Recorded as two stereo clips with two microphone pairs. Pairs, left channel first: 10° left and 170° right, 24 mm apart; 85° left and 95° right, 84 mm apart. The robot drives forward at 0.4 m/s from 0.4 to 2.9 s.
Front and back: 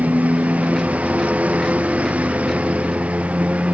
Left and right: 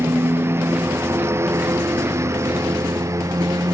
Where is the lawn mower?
155° right; by 3.8 s 145° right.